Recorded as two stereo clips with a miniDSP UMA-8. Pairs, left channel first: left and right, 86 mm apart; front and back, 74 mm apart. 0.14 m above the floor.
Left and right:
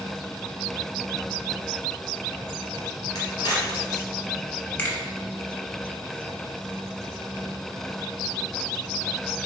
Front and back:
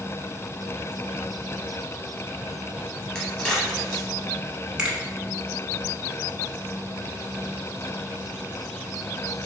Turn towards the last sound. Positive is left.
turn(degrees=120)